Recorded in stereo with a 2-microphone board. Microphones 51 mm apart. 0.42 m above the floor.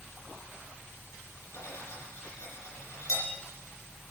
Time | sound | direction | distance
1.5 | cutlery clinking | 80° left | 7 m